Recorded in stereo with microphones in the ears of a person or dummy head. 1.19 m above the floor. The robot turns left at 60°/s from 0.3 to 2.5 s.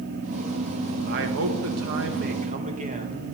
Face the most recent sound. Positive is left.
turn(degrees=-135)